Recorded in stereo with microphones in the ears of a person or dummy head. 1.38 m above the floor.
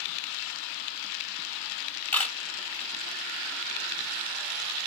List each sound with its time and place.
2.1 s a camera shutter: 5° left (ahead or behind), 0.9 m